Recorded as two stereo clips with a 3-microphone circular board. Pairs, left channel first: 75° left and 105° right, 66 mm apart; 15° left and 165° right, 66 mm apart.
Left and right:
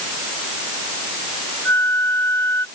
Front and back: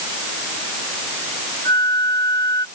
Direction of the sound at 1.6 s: 25° left.